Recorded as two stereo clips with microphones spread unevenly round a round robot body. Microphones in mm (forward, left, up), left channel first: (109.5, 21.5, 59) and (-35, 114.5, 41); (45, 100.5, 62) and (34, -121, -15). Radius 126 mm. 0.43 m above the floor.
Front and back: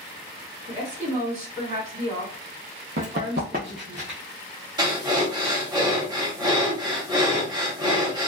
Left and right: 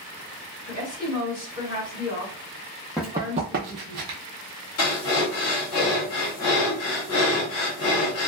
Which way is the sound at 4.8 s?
100° left.